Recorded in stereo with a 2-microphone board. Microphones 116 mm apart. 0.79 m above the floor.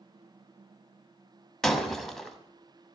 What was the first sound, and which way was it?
Breaking glass, 5° left (ahead or behind).